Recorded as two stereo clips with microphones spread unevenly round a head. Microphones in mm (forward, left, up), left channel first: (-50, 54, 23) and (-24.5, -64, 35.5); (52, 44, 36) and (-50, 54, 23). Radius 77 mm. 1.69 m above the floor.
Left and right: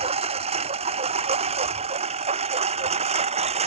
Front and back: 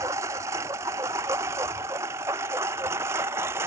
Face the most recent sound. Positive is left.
turn(degrees=-110)